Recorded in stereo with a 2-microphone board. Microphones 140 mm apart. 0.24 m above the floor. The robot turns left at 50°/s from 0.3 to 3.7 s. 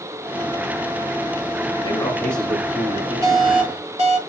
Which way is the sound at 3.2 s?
25° right (ahead or behind).